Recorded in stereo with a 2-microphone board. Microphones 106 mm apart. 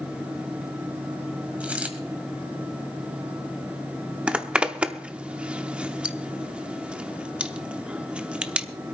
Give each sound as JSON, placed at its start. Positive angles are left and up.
{"t": 1.6, "sound": "a dropped coin", "side_deg": -10, "distance_m": 1.6}
{"t": 4.3, "sound": "a zipper", "side_deg": -10, "distance_m": 0.7}